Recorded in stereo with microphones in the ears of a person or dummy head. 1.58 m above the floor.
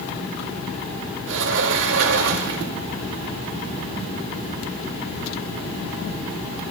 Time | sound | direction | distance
1.3 | a sliding door | 70° right (ahead or behind) | 2.5 m